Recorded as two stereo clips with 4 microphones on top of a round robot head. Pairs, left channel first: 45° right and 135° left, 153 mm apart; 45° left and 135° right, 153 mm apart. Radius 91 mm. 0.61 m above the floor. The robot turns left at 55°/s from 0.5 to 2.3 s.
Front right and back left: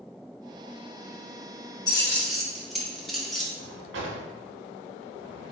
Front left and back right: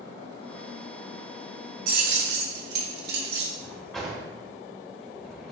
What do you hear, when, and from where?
1.9 s keys jangling: 110° right, 0.7 m; by 3.5 s 130° right, 0.7 m
3.6 s a drawer: 135° left, 0.6 m